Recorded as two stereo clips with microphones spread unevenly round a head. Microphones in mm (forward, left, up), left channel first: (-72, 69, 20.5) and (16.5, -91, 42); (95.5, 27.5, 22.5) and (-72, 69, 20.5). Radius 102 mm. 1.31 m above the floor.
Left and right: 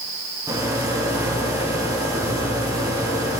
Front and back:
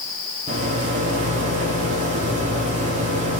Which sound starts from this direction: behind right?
A rattle, at 0.5 s.